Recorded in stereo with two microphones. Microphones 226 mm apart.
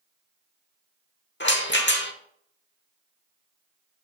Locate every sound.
1.4 s a rattle: 50° left (ahead or behind), 1.0 m